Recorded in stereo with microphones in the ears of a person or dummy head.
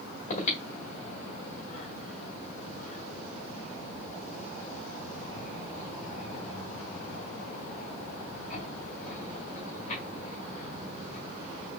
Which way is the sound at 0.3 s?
40° left (ahead or behind).